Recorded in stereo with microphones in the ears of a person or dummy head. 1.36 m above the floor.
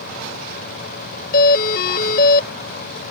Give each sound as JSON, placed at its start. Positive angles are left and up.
{"t": 1.3, "sound": "a doorbell", "side_deg": 45}